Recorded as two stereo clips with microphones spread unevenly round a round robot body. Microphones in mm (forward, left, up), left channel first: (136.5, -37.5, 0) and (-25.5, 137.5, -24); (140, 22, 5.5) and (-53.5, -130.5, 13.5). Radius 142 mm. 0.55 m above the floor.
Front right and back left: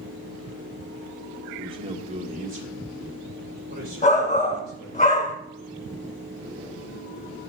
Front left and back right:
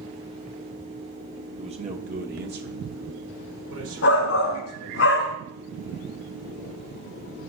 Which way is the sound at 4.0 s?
15° left.